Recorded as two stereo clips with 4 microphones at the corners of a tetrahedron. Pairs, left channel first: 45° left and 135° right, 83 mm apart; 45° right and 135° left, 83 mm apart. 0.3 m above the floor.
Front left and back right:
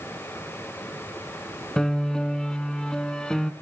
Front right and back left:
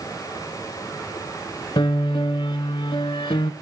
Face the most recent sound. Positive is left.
turn(degrees=-35)